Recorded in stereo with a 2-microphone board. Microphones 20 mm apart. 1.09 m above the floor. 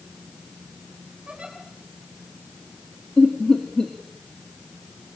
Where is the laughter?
45° left (ahead or behind), 2.0 m.